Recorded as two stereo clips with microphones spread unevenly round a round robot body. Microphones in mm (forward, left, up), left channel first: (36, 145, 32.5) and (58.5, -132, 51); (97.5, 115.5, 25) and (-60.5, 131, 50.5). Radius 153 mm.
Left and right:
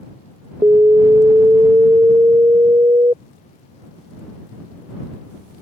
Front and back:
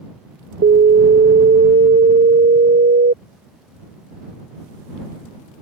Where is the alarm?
165° right.